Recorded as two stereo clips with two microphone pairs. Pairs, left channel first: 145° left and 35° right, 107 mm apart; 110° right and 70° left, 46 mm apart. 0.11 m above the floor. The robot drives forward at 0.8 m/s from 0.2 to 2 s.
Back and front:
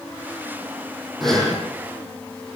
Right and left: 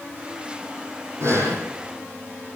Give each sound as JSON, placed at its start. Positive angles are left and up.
{"t": 1.2, "sound": "breathing", "azimuth_deg": 60, "distance_m": 6.0}